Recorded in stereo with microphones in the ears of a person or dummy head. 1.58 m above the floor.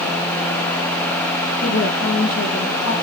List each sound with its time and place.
1.6 s a woman speaking: 85° left, 2 m